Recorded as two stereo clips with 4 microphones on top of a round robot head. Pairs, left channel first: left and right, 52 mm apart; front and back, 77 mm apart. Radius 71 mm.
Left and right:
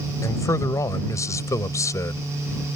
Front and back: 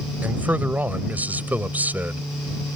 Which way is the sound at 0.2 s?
110° left.